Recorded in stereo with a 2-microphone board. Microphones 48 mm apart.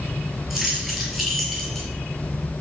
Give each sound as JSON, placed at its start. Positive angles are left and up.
{"t": 0.5, "sound": "keys jangling", "side_deg": -10, "distance_m": 5.5}